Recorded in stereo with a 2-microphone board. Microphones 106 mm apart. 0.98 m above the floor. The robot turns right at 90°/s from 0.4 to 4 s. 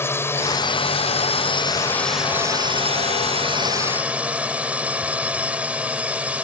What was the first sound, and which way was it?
A drone, 25° left.